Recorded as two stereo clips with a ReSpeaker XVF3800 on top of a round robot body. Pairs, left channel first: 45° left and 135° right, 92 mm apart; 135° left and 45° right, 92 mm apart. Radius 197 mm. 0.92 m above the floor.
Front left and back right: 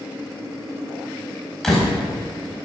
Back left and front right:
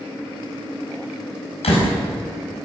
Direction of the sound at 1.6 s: 130° left.